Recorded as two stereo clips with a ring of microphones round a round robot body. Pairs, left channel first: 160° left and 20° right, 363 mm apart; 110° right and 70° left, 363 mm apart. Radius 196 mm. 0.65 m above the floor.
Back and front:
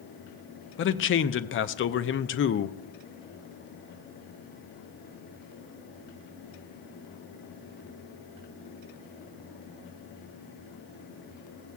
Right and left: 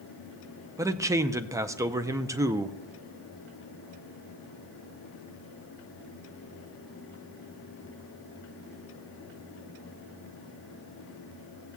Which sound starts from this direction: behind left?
A man speaking, at 0.8 s.